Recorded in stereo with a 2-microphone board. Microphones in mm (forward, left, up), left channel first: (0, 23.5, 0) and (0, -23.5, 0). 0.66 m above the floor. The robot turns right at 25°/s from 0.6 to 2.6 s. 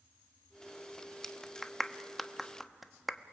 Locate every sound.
1.2 s a clap: 10° left (ahead or behind), 0.8 m; by 3.3 s 5° right (ahead or behind), 0.8 m